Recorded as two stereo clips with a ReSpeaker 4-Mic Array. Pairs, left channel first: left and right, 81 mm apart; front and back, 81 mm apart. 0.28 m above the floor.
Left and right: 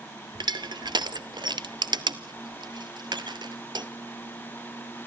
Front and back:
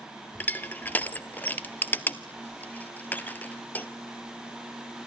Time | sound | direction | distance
0.3 | crushing | 70° right | 0.8 m